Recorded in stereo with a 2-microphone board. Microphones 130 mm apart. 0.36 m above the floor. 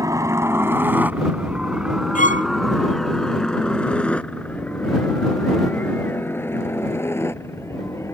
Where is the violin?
75° left (ahead or behind).